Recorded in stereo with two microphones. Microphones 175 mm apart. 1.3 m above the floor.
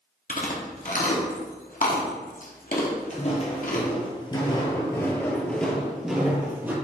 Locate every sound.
0.3 s chewing: 55° left (ahead or behind), 1.1 m
3.1 s footsteps: 45° left (ahead or behind), 1.8 m; by 6.7 s 15° right (ahead or behind), 1.8 m